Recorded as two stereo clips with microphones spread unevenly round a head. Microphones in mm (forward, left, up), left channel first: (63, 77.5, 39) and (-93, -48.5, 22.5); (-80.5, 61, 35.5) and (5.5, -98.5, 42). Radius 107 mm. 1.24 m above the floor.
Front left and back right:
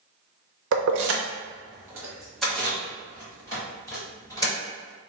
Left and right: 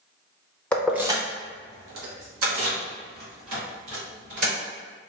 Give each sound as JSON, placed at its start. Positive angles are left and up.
{"t": 0.7, "sound": "keys jangling", "azimuth_deg": -160, "distance_m": 0.6}